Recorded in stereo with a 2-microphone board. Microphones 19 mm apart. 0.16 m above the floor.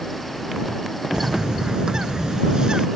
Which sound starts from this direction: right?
A bird, at 1.1 s.